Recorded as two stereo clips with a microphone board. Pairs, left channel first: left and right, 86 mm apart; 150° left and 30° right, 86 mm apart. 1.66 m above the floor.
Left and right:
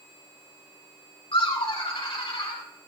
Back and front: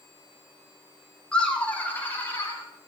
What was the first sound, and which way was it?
Laughter, 70° left.